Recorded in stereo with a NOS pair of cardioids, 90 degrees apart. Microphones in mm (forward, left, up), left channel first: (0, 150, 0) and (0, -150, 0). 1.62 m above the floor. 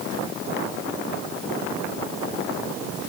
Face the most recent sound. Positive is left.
No sound to turn to.